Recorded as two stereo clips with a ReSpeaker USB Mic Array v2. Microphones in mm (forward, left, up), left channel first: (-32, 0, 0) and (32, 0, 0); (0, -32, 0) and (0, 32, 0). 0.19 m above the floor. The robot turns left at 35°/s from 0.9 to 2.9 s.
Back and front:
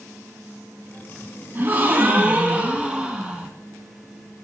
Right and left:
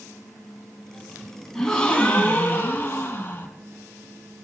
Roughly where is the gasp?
Ahead.